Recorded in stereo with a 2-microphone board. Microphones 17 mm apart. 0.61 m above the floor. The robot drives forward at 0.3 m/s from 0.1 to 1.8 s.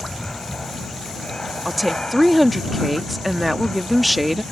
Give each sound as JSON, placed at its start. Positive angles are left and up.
{"t": 0.0, "sound": "an aircraft", "side_deg": 45}
{"t": 1.6, "sound": "a woman speaking", "side_deg": -5}